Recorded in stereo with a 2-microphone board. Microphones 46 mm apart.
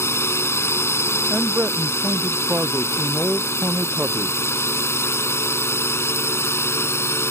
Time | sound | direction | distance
0.0 | a drone | 75° left (ahead or behind) | ?
1.3 | a man speaking | 35° right (ahead or behind) | ?